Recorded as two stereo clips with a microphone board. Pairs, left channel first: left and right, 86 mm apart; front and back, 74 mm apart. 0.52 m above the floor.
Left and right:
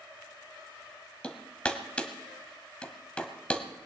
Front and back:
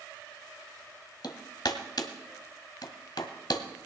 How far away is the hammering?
About 1.2 m.